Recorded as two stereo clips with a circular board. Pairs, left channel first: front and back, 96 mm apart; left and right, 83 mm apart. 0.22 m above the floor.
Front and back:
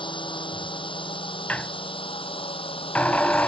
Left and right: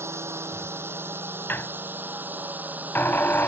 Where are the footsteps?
I don't hear footsteps.